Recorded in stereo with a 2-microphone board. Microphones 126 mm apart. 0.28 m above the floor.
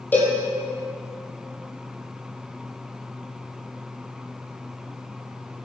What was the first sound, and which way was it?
A cowbell, 15° left (ahead or behind).